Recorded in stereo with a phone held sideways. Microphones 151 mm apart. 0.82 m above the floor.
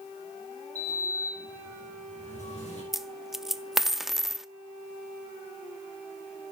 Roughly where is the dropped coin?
Centre.